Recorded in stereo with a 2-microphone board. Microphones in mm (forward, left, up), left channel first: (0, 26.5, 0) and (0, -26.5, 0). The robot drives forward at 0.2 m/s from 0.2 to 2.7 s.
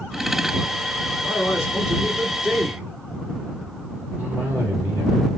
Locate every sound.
1.2 s a man speaking: 15° right (ahead or behind), 2 m
4.2 s a cough: 30° right (ahead or behind), 2.0 m